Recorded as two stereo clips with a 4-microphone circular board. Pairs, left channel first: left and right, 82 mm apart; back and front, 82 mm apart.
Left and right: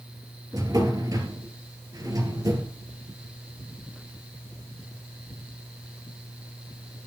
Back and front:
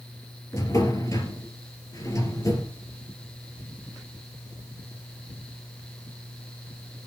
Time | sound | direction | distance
0.5 | a drawer | 135° right | 3 m